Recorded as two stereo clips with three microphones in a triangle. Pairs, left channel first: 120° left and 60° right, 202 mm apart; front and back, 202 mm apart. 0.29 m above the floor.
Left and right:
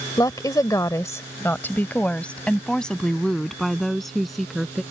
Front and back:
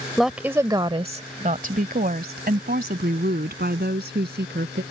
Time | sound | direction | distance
0.2 | a woman speaking | 85° left | ?